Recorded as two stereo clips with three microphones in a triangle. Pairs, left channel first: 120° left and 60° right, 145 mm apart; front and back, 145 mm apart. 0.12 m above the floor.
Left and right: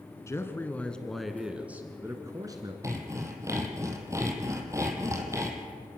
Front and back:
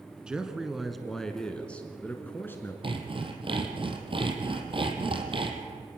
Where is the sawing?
130° right, 2.5 m.